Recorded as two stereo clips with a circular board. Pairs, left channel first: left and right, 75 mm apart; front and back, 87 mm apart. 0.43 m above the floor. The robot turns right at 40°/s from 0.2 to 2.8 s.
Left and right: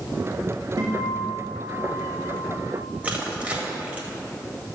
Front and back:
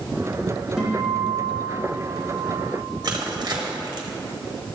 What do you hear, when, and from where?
0.8 s a guitar: 95° right, 3.5 m; by 2.8 s 20° right, 3.5 m
3.0 s crushing: 155° right, 1.6 m